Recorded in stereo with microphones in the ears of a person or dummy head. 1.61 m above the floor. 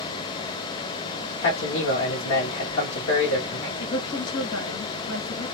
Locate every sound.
1.4 s a man speaking: 80° left, 1.3 m
3.8 s a woman speaking: 75° left (ahead or behind), 1.8 m